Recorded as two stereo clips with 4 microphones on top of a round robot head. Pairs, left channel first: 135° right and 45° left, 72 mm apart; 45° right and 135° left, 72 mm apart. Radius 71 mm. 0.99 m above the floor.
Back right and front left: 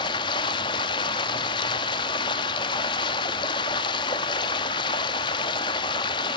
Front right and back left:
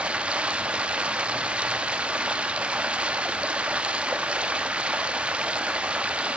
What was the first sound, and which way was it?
Running water, 150° right.